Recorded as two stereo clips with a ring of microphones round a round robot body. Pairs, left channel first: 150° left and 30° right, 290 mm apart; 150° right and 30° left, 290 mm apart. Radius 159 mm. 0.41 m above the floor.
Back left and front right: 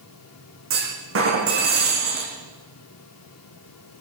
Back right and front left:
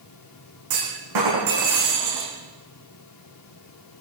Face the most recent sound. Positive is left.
turn(degrees=15)